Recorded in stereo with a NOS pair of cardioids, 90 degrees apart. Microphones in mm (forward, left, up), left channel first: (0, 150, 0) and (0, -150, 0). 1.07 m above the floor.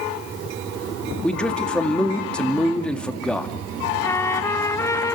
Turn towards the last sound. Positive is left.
turn(degrees=10)